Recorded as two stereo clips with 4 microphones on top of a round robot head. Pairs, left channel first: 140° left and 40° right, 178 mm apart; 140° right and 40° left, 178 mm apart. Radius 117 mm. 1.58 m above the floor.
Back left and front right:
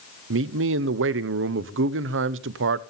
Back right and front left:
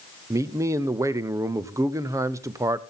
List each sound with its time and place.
0.3 s a man speaking: 35° right, 0.7 m